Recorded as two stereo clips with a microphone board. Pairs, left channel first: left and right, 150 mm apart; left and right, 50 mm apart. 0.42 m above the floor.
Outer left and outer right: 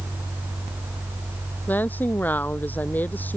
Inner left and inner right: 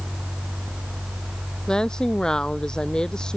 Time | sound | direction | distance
1.7 | a woman speaking | 10° left (ahead or behind) | ?